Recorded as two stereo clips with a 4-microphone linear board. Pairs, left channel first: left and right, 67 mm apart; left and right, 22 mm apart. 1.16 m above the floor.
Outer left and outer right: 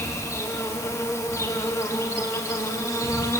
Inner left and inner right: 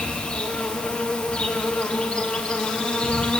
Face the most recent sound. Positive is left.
turn(degrees=45)  # may be behind; listen again after turning